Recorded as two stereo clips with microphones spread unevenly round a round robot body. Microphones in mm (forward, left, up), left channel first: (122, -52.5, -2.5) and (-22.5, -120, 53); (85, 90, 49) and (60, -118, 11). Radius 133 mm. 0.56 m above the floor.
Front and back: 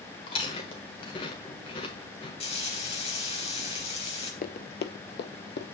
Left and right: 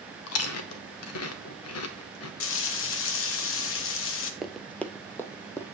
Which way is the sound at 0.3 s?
80° left.